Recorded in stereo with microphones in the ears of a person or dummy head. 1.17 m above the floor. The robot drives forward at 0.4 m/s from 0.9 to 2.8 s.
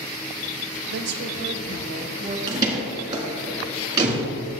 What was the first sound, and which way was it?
A woman speaking, 60° right (ahead or behind).